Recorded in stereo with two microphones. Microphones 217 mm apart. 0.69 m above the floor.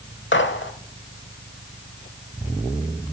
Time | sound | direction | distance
0.3 | a gunshot | 60° left (ahead or behind) | 0.9 m